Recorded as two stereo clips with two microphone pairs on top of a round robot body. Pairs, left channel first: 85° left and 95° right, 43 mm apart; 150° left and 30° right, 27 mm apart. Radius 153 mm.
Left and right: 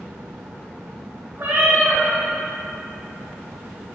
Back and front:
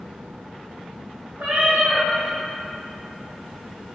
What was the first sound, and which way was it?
A cat meowing, 55° right.